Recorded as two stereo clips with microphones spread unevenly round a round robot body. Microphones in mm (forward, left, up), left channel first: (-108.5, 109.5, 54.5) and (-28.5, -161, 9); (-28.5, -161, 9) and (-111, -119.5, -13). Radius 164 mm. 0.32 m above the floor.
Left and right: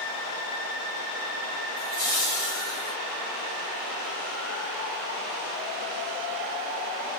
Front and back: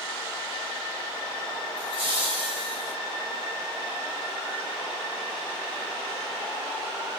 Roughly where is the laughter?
Ahead left.